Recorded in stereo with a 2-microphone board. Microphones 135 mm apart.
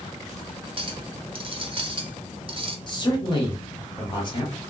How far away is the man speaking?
About 1.2 m.